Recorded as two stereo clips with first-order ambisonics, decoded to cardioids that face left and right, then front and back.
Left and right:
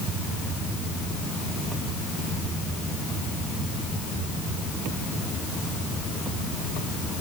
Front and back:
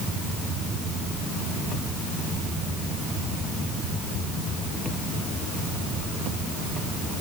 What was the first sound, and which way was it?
Only background noise.